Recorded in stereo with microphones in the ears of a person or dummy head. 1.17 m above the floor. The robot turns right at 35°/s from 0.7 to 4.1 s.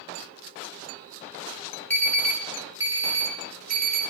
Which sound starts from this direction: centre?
An alarm, at 1.9 s.